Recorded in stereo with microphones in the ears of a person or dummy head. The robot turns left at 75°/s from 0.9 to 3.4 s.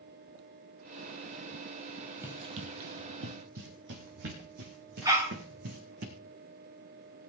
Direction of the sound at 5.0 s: 15° right (ahead or behind).